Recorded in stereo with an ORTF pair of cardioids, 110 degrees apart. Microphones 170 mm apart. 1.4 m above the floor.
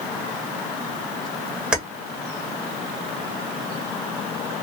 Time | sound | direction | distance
1.7 | keys jangling | 5° right | 1.2 m